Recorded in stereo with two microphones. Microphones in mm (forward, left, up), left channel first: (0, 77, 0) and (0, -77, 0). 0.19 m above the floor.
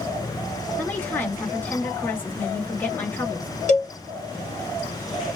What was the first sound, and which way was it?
A woman speaking, 10° left (ahead or behind).